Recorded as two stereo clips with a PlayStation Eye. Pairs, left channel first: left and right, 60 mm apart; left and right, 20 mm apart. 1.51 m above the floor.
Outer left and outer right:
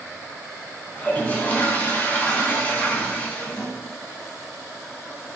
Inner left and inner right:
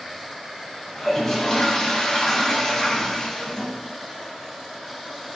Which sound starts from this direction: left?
A toilet flushing, at 0.9 s.